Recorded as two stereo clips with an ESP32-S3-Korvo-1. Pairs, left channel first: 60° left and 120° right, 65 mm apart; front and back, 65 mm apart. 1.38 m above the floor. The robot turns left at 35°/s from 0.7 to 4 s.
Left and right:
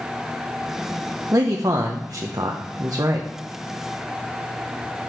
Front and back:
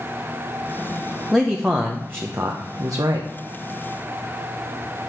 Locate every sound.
1.3 s a man speaking: 90° right, 0.7 m; by 3.3 s 160° right, 0.7 m